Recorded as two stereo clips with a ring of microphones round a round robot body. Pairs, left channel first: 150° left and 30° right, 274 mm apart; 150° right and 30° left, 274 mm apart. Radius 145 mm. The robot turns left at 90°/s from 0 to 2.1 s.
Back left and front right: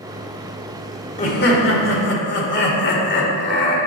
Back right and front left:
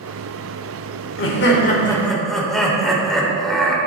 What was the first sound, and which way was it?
Laughter, 155° right.